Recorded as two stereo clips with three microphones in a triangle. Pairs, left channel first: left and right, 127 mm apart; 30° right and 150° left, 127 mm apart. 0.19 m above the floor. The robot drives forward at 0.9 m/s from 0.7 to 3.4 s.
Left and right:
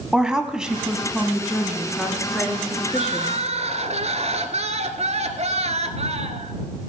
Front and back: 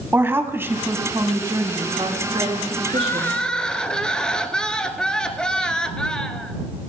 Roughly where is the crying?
Right.